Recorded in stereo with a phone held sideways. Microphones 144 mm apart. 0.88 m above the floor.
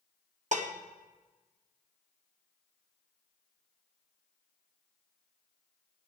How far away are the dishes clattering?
About 0.8 m.